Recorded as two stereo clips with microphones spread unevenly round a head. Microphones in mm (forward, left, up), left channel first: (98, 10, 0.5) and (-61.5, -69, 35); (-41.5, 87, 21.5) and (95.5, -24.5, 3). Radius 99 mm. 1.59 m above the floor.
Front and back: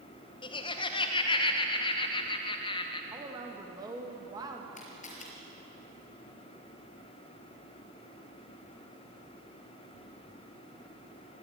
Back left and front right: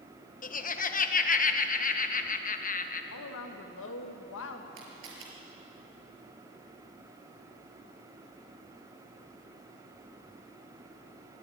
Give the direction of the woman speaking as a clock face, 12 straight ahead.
8 o'clock.